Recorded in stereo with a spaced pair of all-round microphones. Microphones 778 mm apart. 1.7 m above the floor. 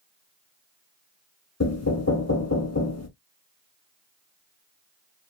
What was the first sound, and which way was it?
Knocking, 20° left (ahead or behind).